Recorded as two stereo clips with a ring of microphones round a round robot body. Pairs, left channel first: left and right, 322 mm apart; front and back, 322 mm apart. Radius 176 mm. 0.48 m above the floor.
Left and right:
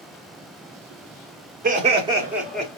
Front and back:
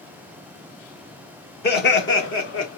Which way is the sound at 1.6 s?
40° right.